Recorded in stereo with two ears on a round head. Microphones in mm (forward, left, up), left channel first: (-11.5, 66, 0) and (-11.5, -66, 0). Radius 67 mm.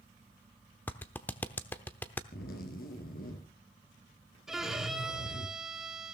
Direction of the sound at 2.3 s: 70° left (ahead or behind).